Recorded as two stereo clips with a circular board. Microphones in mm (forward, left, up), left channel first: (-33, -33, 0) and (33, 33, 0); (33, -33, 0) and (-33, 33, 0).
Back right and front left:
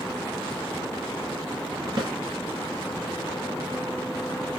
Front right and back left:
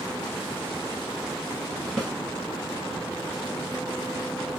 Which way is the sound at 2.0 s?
40° left.